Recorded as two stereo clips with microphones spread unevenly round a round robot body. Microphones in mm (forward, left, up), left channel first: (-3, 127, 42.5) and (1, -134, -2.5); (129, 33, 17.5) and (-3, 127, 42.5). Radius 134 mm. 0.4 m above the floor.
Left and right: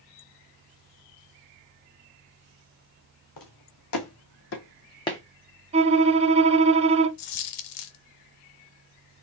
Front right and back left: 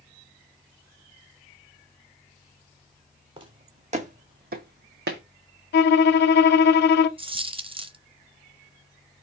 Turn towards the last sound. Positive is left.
turn(degrees=80)